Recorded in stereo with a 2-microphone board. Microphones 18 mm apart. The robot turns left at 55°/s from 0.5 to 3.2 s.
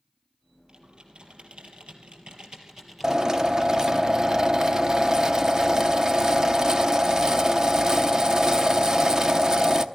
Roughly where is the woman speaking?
I don't hear a woman speaking.